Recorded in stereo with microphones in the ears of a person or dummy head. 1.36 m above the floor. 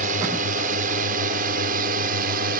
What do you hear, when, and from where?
0.0 s a drone: 50° right (ahead or behind); by 2.6 s 60° right (ahead or behind)